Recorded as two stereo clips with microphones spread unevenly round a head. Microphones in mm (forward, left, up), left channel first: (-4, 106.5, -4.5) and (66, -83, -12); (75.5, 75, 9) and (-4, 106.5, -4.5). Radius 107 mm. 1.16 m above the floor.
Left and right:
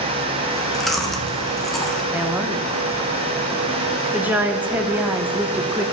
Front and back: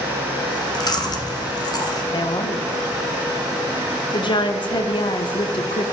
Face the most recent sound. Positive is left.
turn(degrees=10)